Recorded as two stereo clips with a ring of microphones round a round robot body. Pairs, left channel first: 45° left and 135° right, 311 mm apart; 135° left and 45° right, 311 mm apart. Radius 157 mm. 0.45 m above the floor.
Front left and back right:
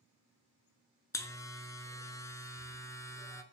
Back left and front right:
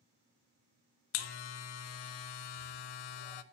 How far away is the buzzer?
About 0.8 m.